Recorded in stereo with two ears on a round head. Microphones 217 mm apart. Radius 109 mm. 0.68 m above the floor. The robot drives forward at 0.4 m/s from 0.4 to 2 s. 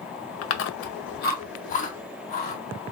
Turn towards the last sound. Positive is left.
turn(degrees=30)  # may be behind; listen again after turning